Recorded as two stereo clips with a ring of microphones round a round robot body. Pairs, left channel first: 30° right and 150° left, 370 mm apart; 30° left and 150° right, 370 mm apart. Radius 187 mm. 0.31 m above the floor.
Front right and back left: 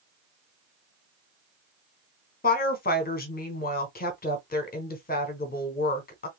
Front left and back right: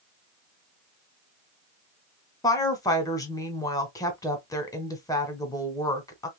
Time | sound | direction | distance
2.4 | a woman speaking | 35° right | 1.1 m